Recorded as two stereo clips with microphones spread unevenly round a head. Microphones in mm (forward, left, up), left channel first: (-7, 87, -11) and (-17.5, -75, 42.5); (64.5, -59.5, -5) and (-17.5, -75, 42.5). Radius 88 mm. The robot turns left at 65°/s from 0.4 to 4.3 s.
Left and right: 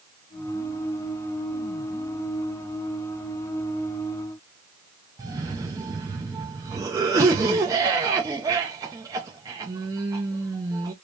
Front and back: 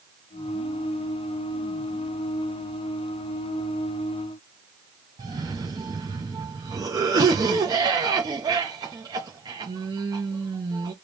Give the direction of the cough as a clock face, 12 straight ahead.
5 o'clock.